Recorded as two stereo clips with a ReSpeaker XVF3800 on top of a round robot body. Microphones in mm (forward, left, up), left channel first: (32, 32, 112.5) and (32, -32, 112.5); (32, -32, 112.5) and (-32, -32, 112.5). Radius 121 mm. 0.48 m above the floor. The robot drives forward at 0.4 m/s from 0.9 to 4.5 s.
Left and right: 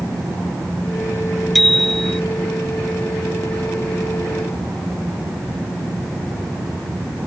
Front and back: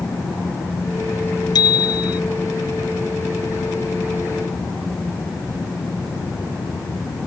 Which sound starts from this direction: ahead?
A bicycle bell, at 1.6 s.